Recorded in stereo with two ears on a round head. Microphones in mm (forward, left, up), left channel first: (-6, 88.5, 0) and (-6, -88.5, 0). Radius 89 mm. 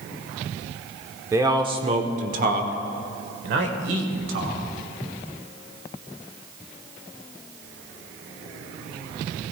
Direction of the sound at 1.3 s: 15° right (ahead or behind).